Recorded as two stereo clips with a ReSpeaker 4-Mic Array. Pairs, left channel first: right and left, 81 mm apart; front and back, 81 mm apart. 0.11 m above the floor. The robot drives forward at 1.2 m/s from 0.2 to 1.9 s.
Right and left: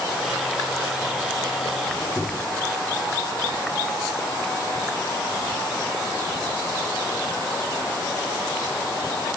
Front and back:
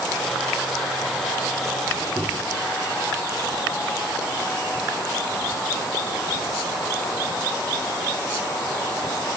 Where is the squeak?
170° right, 1.2 m.